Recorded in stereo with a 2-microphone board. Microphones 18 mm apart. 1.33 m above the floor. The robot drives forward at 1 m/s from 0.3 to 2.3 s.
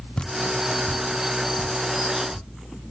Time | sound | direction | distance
0.2 | dripping | 45° left (ahead or behind) | 0.5 m